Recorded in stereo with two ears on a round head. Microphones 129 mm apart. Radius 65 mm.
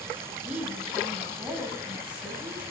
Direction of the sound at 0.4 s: 5° right (ahead or behind).